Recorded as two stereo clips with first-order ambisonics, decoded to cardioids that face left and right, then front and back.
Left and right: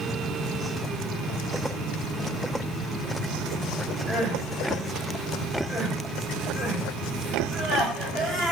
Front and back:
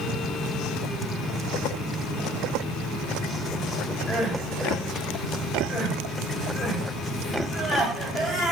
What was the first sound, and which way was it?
Crying, 15° right.